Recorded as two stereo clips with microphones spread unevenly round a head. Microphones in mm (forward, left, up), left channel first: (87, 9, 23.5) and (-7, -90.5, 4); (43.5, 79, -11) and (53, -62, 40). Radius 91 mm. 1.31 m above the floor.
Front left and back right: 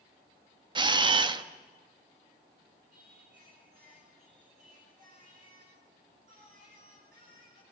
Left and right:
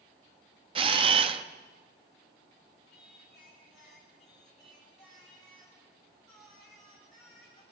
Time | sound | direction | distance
0.8 | a camera shutter | 80° right | 0.9 m
2.9 | singing | 175° right | 6.5 m